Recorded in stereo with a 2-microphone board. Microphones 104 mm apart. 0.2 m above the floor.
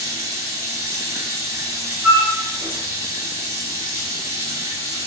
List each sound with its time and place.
0.0 s running water: 30° right (ahead or behind), 2 m
2.0 s a flute: 20° right (ahead or behind), 1.2 m